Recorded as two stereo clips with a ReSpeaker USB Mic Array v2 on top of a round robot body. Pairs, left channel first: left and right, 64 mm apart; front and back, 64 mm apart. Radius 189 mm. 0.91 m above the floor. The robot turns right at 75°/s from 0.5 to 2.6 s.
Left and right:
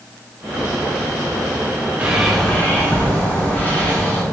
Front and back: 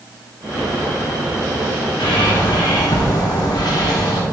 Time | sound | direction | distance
2.0 | a bird | 25° right | 1.8 m